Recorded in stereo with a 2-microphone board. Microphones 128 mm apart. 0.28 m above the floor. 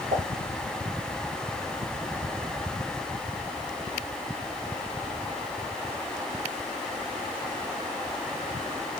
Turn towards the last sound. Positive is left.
turn(degrees=-70)  # may be behind; listen again after turning